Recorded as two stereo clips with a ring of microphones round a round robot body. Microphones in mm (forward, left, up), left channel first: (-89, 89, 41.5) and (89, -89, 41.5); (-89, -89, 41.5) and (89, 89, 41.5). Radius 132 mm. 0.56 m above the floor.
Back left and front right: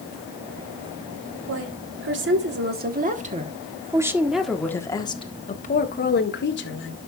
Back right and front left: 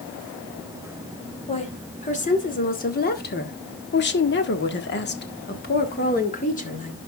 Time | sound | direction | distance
1.5 | a woman speaking | 70° right | 2.5 m